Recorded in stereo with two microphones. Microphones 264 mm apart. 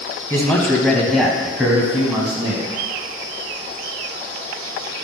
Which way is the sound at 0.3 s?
10° left (ahead or behind).